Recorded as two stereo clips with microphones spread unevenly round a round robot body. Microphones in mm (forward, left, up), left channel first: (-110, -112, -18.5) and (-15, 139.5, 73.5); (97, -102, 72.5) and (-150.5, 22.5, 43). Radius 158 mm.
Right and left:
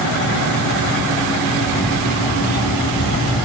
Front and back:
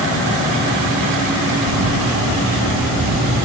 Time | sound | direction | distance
1.6 | a camera shutter | 170° right | 0.7 m